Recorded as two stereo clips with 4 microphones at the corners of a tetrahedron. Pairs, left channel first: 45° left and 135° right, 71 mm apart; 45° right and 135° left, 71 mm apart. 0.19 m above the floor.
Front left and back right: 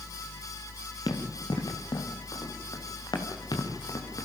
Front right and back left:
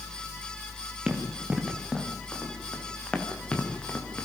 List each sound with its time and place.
1.1 s running footsteps: 60° left, 4 m; by 4.2 s 20° left, 4.5 m